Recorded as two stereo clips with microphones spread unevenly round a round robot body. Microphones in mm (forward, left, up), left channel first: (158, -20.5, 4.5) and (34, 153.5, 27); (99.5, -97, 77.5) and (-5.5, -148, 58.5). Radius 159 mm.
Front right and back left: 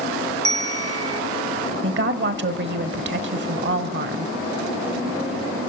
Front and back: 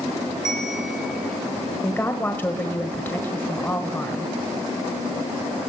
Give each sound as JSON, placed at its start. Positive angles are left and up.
{"t": 0.5, "sound": "a bell", "azimuth_deg": 115, "distance_m": 0.7}
{"t": 1.8, "sound": "a woman speaking", "azimuth_deg": 105, "distance_m": 1.4}